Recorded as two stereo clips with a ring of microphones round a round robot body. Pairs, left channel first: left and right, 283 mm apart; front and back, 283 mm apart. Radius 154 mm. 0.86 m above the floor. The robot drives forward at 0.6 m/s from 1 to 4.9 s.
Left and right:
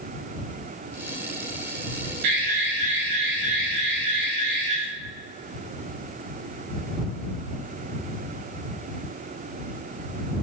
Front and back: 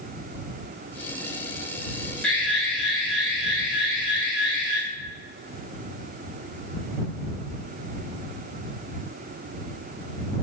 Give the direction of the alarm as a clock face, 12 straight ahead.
3 o'clock.